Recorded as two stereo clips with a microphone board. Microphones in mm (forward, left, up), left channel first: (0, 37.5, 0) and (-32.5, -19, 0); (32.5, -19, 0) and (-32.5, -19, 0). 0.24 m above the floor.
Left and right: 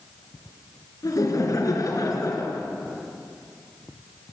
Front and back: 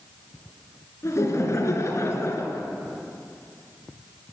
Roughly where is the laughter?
Ahead left.